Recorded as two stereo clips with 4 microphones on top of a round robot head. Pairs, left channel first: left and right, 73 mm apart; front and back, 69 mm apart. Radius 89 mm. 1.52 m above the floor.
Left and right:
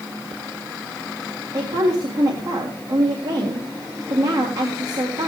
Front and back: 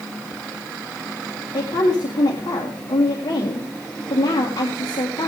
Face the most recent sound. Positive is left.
turn(degrees=-45)